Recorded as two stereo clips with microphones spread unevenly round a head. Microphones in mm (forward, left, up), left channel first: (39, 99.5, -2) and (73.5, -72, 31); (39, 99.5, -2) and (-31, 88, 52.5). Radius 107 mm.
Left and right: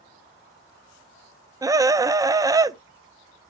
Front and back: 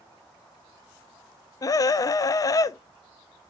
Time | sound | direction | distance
1.6 | a scream | 5° right | 0.6 m